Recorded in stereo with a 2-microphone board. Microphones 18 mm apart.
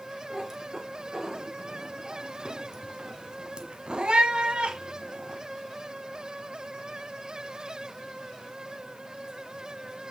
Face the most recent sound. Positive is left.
turn(degrees=-65)  # may be behind; listen again after turning